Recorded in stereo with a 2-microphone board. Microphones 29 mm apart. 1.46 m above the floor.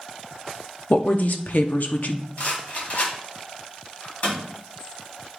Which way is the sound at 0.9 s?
65° left (ahead or behind).